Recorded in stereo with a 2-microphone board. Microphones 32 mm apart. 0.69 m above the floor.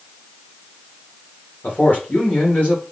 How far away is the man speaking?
About 2 m.